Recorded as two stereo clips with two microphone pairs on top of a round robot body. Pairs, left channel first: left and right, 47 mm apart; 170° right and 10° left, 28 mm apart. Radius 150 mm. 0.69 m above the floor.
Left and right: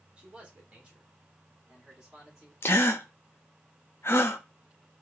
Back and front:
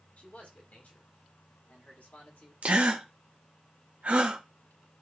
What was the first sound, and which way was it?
A man speaking, 155° right.